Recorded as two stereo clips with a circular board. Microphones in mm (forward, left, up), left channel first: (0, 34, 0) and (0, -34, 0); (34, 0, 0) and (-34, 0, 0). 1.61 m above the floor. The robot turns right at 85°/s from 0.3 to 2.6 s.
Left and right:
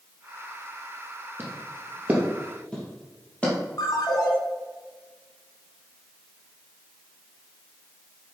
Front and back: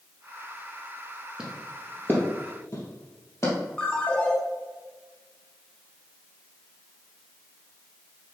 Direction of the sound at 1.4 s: 110° right.